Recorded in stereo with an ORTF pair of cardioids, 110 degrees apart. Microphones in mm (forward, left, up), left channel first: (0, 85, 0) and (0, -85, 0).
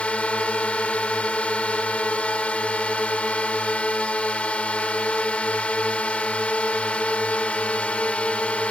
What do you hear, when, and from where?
0.0 s a drone: 10° left